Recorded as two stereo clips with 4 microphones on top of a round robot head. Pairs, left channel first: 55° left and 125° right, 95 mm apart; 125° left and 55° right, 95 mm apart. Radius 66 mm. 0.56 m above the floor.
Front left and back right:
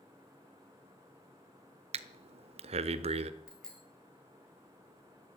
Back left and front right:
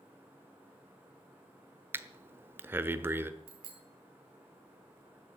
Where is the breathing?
125° right, 0.9 m.